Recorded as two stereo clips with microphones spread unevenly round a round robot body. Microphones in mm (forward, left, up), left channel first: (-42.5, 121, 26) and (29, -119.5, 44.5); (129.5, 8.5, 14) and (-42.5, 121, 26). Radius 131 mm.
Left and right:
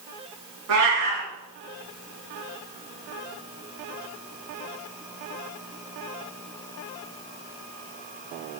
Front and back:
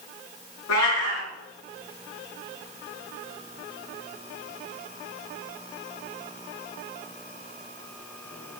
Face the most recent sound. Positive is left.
turn(degrees=-45)